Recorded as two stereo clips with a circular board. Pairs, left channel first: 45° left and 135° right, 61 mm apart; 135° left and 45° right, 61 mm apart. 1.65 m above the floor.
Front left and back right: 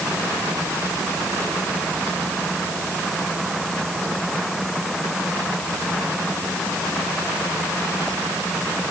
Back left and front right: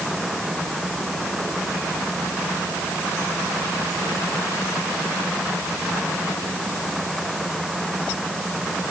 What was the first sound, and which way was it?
Only background noise.